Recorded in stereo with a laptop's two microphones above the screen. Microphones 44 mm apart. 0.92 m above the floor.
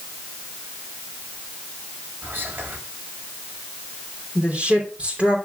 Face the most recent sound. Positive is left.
turn(degrees=-25)  # may be behind; listen again after turning